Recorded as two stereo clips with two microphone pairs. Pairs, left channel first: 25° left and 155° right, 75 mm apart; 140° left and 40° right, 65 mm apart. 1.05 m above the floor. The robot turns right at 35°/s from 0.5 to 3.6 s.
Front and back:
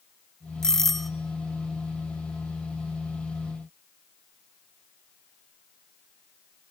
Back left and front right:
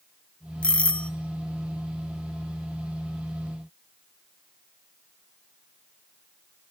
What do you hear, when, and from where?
0.6 s a doorbell: 95° left, 0.7 m; by 1.1 s 110° left, 0.7 m